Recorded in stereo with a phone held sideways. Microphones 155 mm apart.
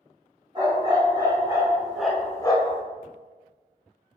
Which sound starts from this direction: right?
A dog barking, at 0.6 s.